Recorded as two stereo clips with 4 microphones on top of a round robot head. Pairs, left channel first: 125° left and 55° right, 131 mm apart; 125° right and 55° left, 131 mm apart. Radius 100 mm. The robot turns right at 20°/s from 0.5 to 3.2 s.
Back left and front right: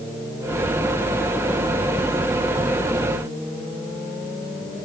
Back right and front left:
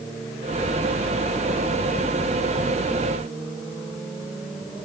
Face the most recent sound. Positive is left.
No sound to turn to.